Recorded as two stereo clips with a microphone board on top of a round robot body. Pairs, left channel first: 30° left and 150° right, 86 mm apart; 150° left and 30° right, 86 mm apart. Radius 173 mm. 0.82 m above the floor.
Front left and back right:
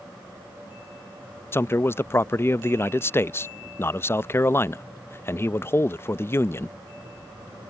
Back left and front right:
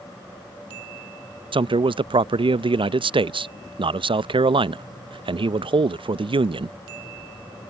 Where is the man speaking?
30° right.